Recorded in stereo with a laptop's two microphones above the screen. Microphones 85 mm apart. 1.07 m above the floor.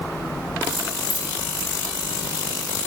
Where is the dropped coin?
55° left (ahead or behind), 2 m.